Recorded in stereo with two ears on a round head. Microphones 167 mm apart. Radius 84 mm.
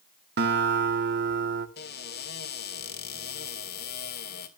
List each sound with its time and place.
0.4 s a guitar: 60° right (ahead or behind), 1.4 m
1.8 s a cupboard door: 55° left (ahead or behind), 2.0 m